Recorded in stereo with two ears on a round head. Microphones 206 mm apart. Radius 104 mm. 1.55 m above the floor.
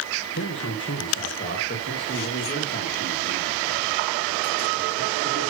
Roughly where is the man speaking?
Left.